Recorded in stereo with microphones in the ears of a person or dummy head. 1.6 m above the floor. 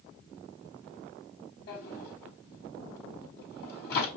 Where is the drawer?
60° left (ahead or behind), 4 m.